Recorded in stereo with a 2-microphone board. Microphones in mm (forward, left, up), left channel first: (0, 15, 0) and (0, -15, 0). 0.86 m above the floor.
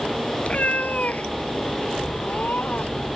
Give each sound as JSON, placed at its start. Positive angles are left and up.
{"t": 0.4, "sound": "a cat meowing", "side_deg": 50}